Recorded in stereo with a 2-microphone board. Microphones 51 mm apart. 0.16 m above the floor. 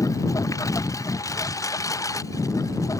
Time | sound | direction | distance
0.0 | a lawn mower | 90° left | ?